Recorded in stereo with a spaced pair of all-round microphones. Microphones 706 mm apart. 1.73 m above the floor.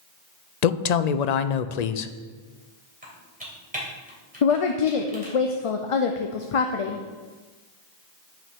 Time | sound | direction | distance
0.6 | a woman speaking | 70° left (ahead or behind) | 0.6 m
3.0 | typing on a keyboard | 10° right (ahead or behind) | 2.5 m
4.4 | a woman speaking | 50° left (ahead or behind) | 0.6 m